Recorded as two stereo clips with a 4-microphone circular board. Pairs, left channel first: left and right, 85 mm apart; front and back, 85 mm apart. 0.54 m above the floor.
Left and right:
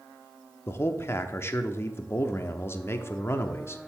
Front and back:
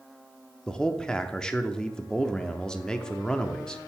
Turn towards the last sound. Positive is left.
turn(degrees=75)